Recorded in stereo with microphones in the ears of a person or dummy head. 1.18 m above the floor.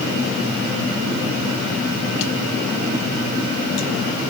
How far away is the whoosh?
I don't hear a whoosh.